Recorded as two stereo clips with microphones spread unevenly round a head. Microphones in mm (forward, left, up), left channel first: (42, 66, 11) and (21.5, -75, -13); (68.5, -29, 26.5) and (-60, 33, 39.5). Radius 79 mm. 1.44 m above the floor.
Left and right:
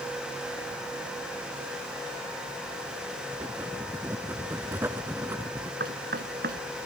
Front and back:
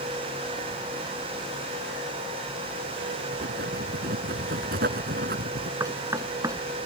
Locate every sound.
3.3 s writing: 175° right
5.8 s knocking: 135° right